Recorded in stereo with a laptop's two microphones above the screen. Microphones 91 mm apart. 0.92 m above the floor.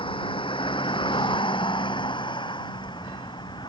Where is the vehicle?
75° left (ahead or behind); by 3.7 s 60° left (ahead or behind).